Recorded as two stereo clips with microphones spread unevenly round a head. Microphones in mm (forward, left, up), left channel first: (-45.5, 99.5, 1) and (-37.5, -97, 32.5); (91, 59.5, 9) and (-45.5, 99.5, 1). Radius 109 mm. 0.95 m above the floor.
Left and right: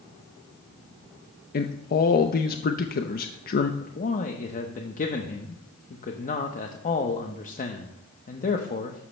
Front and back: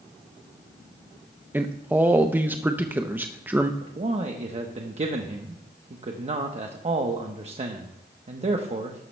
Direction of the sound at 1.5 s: 90° left.